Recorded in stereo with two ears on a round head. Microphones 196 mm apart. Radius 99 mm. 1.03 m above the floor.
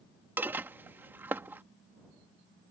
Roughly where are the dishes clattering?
Centre.